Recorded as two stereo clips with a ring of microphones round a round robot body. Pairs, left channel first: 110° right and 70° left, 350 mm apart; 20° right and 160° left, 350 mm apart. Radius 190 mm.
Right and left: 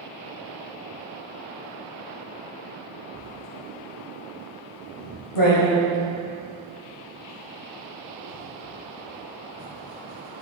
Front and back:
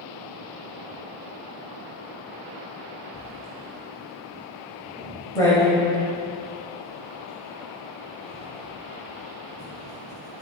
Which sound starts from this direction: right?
Writing, at 3.1 s.